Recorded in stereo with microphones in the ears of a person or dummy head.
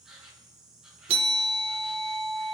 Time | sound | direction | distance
0.0 | an insect | 5° left (ahead or behind) | 1.3 m
1.1 | a bell | 25° right (ahead or behind) | 0.9 m